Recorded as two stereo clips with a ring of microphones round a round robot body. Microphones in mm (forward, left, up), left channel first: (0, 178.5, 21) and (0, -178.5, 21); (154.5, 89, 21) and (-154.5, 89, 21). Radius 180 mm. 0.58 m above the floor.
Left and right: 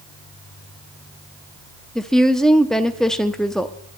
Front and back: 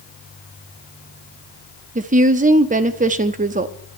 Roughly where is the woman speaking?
Behind.